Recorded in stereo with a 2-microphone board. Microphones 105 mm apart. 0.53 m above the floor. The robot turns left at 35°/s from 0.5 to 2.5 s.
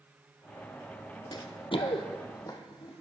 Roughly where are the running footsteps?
Left.